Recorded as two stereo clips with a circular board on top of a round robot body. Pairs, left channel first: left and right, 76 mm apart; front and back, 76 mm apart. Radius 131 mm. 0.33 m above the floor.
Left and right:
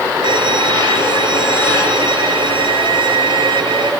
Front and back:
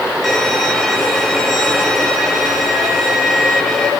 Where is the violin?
85° right, 6 m.